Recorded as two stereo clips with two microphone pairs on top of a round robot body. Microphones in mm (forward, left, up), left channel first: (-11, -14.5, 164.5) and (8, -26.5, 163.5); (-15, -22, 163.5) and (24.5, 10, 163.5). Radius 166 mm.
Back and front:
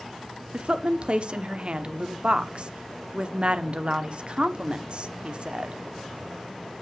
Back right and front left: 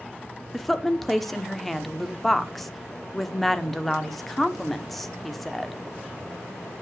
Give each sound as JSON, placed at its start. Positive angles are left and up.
{"t": 0.5, "sound": "a woman speaking", "azimuth_deg": -55, "distance_m": 1.4}